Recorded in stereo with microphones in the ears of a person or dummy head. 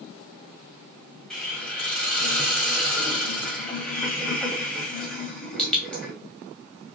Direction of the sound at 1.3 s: 10° left (ahead or behind).